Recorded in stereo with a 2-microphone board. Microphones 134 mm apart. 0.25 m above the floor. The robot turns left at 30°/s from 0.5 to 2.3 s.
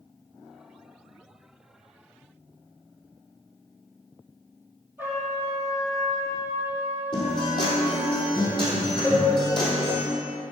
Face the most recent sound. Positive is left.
turn(degrees=15)  # may be behind; listen again after turning